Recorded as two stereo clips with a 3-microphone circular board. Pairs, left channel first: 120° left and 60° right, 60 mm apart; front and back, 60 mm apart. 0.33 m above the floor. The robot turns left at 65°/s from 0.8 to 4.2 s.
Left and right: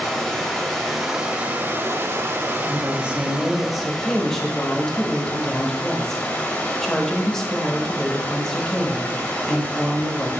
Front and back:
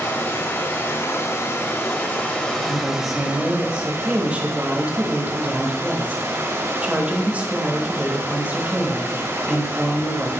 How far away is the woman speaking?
About 0.9 m.